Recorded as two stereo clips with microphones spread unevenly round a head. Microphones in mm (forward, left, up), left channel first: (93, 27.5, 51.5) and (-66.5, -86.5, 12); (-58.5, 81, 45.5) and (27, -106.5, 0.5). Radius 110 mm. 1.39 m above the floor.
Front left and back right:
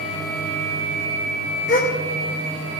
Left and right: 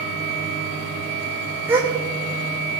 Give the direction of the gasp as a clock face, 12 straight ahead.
11 o'clock.